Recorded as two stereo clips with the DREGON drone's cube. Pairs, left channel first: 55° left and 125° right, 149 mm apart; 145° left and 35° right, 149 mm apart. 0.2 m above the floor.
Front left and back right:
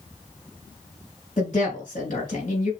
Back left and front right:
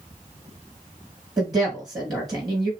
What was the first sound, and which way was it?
A woman speaking, 30° left.